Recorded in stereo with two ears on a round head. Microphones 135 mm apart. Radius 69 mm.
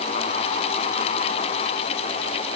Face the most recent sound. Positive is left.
No sound to turn to.